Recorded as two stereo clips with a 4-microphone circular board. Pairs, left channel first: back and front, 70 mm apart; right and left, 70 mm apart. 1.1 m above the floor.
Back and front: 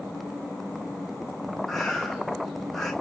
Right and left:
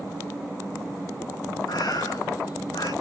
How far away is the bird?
About 9.5 m.